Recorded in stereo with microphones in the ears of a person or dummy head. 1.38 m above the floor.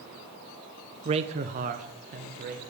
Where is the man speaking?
30° right (ahead or behind), 0.5 m; by 2.6 s 45° right (ahead or behind), 1.3 m.